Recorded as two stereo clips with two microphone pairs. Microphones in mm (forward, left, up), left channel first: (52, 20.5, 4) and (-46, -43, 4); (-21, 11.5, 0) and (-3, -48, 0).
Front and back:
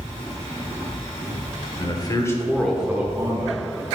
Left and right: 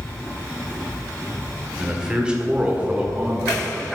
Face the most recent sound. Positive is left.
turn(degrees=-145)